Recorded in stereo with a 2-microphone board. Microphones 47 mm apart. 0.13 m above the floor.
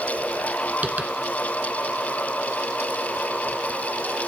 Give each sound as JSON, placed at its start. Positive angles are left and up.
{"t": 0.8, "sound": "tapping", "side_deg": -35, "distance_m": 0.7}